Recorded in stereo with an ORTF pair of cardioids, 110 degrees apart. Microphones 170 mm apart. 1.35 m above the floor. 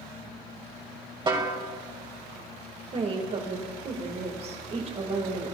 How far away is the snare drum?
About 2 m.